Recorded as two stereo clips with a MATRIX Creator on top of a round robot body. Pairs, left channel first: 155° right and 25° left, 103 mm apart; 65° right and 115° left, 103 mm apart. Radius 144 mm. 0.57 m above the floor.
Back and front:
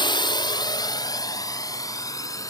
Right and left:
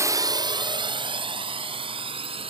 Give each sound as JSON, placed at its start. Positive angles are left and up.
{"t": 0.0, "sound": "a drone", "azimuth_deg": 170}